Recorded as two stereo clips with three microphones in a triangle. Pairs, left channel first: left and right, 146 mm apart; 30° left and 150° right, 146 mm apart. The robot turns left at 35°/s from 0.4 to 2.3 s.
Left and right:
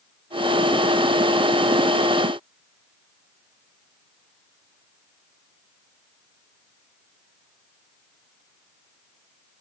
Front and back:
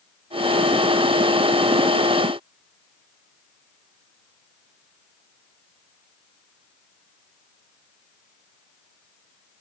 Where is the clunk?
I don't hear a clunk.